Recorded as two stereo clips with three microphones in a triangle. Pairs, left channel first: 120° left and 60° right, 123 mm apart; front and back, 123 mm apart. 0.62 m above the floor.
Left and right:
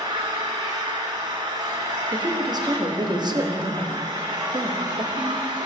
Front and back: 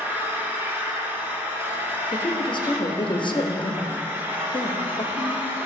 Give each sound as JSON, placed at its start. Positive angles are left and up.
{"t": 0.0, "sound": "an engine running", "azimuth_deg": -110, "distance_m": 1.3}
{"t": 2.1, "sound": "a woman speaking", "azimuth_deg": -25, "distance_m": 0.8}